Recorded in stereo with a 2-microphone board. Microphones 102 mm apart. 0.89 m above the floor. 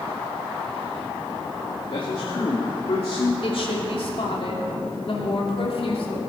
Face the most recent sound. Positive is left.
turn(degrees=65)  # may be behind; listen again after turning